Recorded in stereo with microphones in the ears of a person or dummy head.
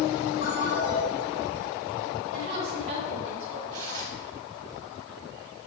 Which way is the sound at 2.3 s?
45° right (ahead or behind).